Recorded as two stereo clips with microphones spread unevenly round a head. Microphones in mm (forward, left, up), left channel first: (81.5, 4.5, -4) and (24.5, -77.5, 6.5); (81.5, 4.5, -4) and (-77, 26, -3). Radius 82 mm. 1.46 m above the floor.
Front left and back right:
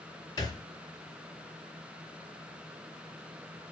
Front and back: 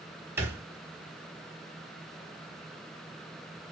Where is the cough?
I don't hear a cough.